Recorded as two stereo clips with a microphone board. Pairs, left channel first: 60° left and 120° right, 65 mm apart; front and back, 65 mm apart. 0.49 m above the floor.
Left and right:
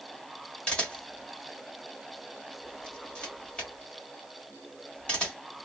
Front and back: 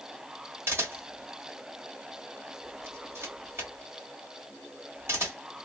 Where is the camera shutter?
135° left, 1.4 m.